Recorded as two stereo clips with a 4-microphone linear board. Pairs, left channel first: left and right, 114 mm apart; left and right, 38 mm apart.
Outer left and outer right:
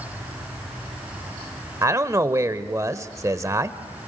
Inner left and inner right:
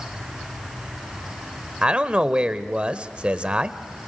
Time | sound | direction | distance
1.8 | a man speaking | 30° right (ahead or behind) | 1.0 m